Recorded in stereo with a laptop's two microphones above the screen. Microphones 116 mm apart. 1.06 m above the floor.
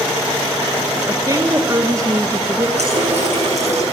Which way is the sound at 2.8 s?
70° right (ahead or behind).